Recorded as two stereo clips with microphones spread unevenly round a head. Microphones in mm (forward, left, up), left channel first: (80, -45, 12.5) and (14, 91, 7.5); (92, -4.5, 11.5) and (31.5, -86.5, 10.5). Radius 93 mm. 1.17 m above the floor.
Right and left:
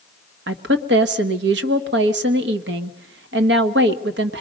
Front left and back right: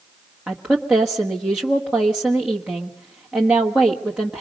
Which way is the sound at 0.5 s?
150° left.